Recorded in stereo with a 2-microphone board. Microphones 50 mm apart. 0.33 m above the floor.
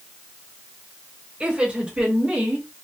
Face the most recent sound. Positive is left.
turn(degrees=-35)  # may be behind; listen again after turning